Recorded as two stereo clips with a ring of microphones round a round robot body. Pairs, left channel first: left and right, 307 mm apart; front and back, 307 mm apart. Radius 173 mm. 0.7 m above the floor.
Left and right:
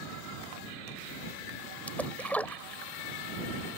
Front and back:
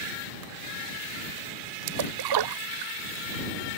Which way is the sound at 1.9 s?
175° left.